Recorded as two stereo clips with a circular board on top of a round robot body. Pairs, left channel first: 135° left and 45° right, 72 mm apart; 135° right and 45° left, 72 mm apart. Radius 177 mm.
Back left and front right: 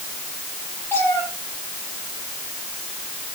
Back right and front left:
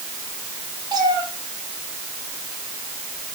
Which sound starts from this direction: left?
A cat meowing, at 0.9 s.